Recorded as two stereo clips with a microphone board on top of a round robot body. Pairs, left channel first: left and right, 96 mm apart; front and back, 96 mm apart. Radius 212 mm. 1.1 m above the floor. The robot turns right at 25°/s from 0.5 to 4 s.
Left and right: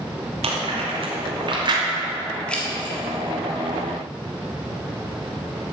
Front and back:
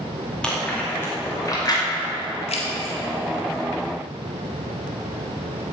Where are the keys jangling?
10° left, 1.6 m; by 3.0 s 20° left, 1.6 m.